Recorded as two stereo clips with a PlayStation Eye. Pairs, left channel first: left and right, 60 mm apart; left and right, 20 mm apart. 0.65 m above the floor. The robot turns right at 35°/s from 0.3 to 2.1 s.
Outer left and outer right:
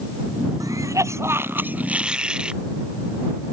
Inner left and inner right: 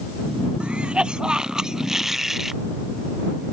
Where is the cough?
65° right; by 2.6 s 15° right.